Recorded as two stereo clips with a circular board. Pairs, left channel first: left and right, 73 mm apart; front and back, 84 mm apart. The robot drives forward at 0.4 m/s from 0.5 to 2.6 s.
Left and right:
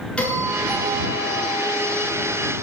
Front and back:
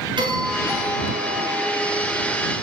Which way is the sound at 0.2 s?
165° left.